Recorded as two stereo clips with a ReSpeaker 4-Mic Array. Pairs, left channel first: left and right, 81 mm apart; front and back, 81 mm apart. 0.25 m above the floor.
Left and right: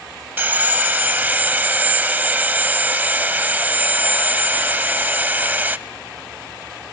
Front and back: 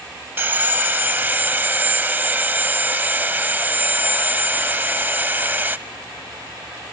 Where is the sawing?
140° right, 0.8 m.